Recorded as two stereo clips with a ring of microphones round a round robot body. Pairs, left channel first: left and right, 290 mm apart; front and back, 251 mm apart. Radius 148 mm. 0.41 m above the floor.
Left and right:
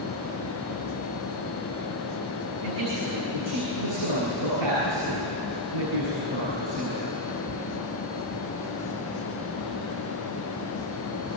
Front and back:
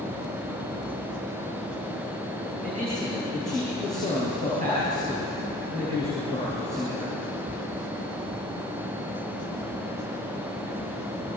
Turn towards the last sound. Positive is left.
turn(degrees=-110)